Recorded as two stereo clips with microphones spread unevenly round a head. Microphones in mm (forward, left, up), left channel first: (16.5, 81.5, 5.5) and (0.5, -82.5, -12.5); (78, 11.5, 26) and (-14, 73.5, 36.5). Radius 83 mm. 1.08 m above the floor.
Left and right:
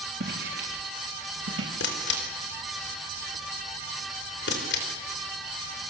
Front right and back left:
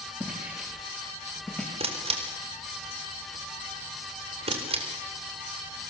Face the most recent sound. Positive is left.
turn(degrees=115)